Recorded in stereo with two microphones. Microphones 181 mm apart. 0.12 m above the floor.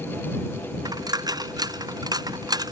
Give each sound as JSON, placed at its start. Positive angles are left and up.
{"t": 0.8, "sound": "a dropped coin", "side_deg": -20}